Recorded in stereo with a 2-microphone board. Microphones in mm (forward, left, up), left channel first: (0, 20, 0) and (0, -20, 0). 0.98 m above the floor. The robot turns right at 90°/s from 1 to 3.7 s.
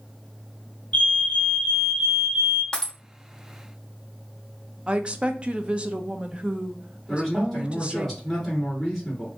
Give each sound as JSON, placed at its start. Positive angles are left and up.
{"t": 0.9, "sound": "a fire alarm", "azimuth_deg": 95, "distance_m": 1.3}
{"t": 2.7, "sound": "breaking glass", "side_deg": 20, "distance_m": 1.1}
{"t": 4.9, "sound": "a woman speaking", "side_deg": -30, "distance_m": 0.6}
{"t": 7.1, "sound": "a man speaking", "side_deg": 5, "distance_m": 3.0}